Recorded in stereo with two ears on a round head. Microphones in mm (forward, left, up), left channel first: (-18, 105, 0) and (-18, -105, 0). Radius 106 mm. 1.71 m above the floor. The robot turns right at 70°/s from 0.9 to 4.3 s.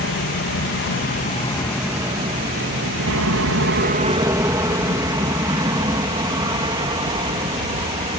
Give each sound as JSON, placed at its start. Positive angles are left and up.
{"t": 0.0, "sound": "an aircraft", "side_deg": 50}